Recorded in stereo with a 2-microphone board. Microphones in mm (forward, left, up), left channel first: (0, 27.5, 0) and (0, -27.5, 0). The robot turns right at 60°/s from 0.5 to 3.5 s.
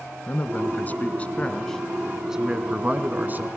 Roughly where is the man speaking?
Left.